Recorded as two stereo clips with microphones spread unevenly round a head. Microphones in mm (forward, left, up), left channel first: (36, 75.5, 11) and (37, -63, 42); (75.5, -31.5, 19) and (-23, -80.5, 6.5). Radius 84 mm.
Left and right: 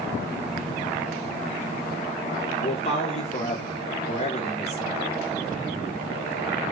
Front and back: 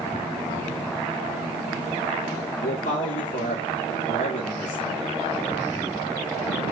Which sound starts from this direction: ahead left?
A man speaking, at 2.6 s.